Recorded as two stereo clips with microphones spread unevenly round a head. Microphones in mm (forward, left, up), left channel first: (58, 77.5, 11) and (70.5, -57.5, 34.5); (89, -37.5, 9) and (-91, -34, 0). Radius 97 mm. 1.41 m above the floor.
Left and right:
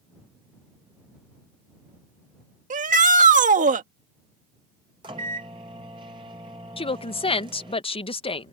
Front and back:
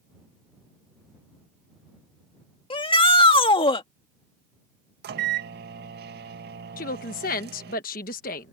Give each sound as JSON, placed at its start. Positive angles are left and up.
{"t": 2.7, "sound": "a shout", "azimuth_deg": -60}
{"t": 5.0, "sound": "a microwave", "azimuth_deg": -150}
{"t": 6.8, "sound": "a woman speaking", "azimuth_deg": 50}